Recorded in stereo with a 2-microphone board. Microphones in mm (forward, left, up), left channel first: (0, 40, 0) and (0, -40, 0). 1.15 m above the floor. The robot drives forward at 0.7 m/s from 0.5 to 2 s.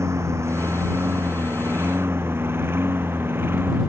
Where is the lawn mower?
35° right (ahead or behind); by 3.9 s 25° right (ahead or behind).